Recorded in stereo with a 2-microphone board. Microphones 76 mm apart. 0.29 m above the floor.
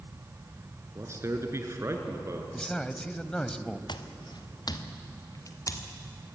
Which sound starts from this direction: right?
A man speaking, at 0.9 s.